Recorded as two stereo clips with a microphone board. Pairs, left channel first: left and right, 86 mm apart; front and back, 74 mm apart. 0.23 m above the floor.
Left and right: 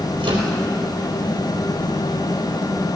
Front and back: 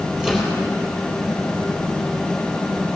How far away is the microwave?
About 4 m.